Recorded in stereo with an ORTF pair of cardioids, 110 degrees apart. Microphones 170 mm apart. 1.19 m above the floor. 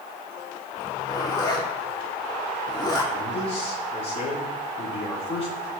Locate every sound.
0.8 s a zipper: 25° left, 2 m
3.1 s a man speaking: 35° left, 3.5 m